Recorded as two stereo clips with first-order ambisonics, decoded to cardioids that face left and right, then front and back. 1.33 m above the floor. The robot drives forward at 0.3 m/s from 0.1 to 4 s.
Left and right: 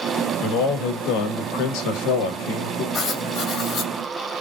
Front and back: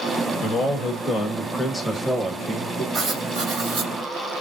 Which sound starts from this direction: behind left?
Writing, at 2.9 s.